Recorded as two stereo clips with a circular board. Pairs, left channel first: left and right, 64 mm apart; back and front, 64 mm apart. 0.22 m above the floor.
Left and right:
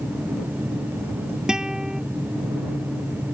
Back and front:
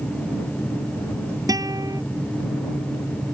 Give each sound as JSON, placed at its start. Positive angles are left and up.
{"t": 1.5, "sound": "a guitar", "azimuth_deg": -10}